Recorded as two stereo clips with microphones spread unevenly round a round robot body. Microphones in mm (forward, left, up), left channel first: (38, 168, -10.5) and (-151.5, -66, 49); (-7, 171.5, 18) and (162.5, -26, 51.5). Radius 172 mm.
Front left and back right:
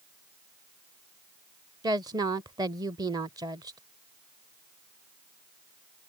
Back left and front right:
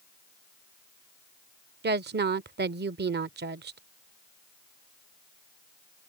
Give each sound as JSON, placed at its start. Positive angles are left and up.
{"t": 1.8, "sound": "a woman speaking", "azimuth_deg": -45}